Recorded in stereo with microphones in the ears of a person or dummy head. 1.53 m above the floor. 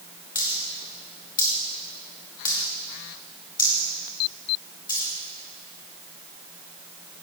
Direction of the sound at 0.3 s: 20° left (ahead or behind).